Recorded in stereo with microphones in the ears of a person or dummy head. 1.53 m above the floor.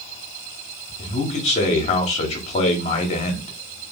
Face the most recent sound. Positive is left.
turn(degrees=30)  # may be behind; listen again after turning